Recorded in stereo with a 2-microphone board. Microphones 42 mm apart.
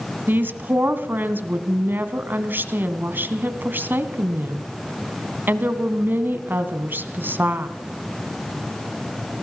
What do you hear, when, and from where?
0.3 s a woman speaking: 50° right (ahead or behind), 2 m